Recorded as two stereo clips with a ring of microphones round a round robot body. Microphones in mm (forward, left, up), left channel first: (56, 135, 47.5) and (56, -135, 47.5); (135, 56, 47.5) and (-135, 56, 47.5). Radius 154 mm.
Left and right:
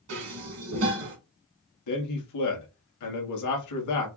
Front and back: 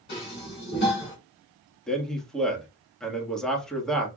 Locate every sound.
0.1 s dishes clattering: 60° right, 2.5 m
1.9 s a man speaking: 90° left, 1.9 m